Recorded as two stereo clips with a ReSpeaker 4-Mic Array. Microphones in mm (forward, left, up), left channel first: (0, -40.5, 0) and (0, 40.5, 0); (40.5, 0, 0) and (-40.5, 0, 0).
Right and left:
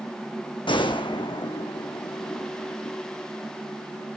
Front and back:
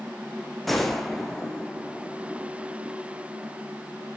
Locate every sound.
0.7 s a gunshot: 90° right, 1.3 m